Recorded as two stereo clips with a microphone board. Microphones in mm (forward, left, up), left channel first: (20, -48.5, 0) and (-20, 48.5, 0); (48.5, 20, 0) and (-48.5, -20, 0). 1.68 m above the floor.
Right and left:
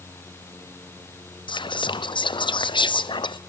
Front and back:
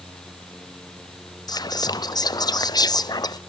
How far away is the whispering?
About 0.5 m.